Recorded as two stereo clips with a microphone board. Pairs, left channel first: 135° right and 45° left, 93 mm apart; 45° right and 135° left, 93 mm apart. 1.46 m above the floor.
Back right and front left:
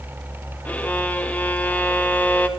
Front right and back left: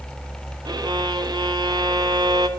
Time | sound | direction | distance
0.7 | a violin | 155° left | 0.6 m